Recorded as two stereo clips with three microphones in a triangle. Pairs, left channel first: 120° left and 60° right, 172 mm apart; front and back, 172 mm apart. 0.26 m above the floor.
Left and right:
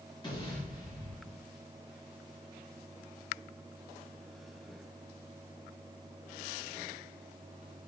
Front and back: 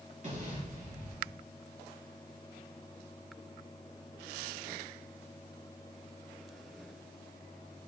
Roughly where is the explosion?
Behind.